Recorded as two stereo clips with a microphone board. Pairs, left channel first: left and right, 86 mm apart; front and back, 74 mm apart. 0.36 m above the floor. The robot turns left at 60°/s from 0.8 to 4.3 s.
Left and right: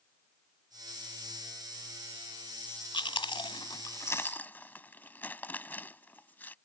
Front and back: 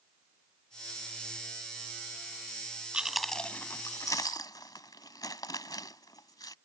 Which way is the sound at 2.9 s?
105° left.